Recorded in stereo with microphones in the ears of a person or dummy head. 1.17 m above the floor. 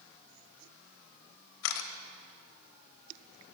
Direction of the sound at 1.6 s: 70° left (ahead or behind).